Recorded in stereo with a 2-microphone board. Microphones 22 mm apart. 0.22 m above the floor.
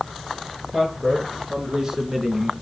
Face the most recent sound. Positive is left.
turn(degrees=-20)  # may be behind; listen again after turning